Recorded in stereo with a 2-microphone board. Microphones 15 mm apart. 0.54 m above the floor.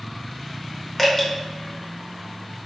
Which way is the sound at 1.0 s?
25° left (ahead or behind).